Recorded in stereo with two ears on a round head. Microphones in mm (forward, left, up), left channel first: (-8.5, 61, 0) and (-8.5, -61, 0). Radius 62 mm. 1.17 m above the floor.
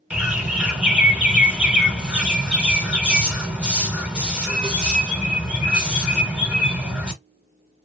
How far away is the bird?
About 1.0 m.